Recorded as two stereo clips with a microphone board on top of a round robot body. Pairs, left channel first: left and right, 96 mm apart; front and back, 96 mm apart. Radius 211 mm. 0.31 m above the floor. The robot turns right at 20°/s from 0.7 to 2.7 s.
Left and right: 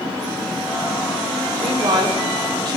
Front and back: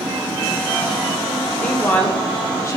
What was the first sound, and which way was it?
A woman speaking, 75° right.